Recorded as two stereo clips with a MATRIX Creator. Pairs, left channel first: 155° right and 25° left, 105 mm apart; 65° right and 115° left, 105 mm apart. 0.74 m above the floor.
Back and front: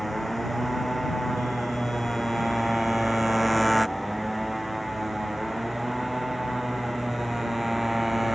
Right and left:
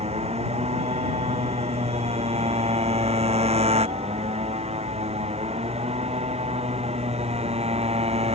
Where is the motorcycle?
115° left; by 8.3 s 110° left.